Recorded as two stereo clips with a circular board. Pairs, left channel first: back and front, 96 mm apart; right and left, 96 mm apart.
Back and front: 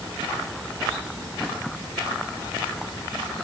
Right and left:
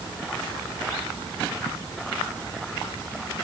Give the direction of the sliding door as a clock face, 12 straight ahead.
No sliding door in this recording.